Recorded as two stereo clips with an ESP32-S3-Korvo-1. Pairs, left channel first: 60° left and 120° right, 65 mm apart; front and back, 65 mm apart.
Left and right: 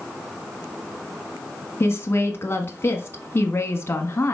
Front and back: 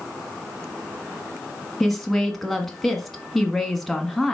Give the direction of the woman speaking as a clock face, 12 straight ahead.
9 o'clock.